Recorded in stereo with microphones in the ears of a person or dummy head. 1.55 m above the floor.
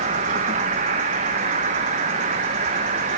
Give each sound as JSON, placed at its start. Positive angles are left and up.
{"t": 0.0, "sound": "an insect", "side_deg": -20, "distance_m": 0.7}